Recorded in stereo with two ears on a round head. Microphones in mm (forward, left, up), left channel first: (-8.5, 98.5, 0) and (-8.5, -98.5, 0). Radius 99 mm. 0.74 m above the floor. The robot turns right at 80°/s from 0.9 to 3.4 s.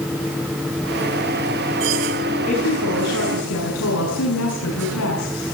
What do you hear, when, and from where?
2.5 s a woman speaking: 30° left, 7.5 m; by 5.5 s 105° left, 7.5 m